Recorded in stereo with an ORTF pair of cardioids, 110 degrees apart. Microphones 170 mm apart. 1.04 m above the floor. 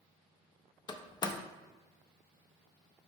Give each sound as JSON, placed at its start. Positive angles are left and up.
{"t": 0.9, "sound": "a door slam", "azimuth_deg": 25, "distance_m": 0.5}